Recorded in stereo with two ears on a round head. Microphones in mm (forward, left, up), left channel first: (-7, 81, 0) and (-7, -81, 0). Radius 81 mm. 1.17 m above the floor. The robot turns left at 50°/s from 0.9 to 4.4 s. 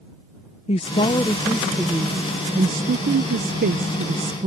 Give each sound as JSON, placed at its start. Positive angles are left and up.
{"t": 0.7, "sound": "a woman speaking", "azimuth_deg": 40}